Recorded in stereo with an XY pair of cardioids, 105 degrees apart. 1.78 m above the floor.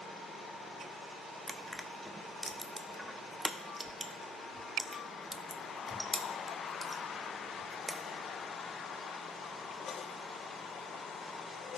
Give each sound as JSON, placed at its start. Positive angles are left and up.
{"t": 1.5, "sound": "crushing", "azimuth_deg": -10, "distance_m": 0.7}